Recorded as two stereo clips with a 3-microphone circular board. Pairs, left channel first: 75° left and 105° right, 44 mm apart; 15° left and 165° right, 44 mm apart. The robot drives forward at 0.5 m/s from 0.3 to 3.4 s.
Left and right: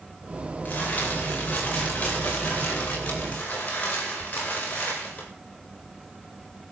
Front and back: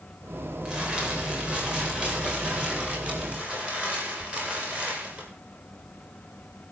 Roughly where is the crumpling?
Behind left.